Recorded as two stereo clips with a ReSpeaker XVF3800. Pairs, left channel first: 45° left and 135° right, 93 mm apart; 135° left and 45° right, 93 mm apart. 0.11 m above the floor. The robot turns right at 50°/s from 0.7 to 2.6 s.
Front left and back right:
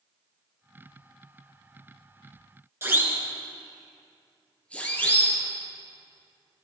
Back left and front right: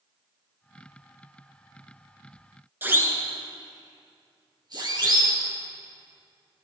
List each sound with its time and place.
2.8 s a siren: 95° right, 2 m; by 5.4 s 15° right, 3.5 m